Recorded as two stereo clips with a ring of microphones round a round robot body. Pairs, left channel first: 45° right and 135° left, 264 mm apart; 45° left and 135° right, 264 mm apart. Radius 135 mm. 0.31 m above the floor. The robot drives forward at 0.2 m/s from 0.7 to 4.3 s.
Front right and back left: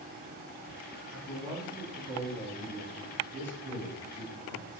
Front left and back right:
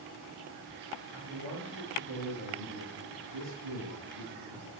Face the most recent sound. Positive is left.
turn(degrees=-145)